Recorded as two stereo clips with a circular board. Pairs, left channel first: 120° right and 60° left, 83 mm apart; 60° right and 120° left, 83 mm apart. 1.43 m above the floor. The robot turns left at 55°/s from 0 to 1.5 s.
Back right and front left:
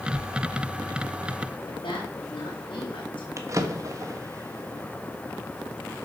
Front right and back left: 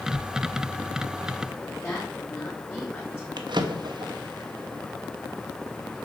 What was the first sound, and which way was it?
A woman speaking, 135° right.